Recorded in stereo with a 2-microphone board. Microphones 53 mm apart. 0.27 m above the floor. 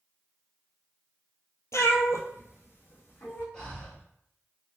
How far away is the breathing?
About 1.2 m.